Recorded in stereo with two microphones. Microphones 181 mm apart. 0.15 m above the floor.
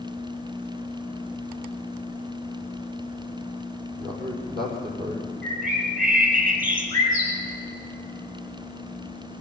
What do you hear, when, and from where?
4.0 s a man speaking: 70° right (ahead or behind), 5.5 m; by 5.2 s 60° right (ahead or behind), 5.5 m
5.4 s a bird: 50° right (ahead or behind), 4.5 m